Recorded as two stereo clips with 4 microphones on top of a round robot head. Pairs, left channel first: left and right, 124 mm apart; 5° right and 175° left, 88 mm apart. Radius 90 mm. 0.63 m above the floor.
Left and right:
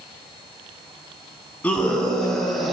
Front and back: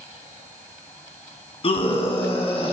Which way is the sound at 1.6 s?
10° left.